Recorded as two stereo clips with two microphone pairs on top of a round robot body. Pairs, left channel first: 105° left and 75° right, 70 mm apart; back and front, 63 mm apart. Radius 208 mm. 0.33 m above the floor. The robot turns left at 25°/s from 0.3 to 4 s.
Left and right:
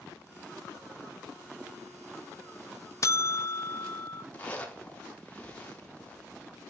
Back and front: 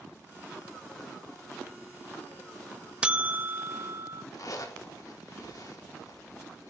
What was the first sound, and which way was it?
A buzzer, 75° left.